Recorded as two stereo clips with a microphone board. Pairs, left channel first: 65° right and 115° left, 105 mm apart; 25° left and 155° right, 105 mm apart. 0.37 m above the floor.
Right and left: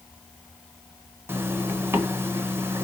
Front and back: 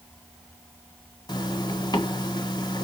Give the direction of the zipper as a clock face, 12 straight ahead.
10 o'clock.